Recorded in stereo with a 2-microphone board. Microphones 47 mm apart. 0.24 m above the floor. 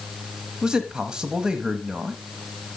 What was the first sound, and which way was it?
A man speaking, 15° right (ahead or behind).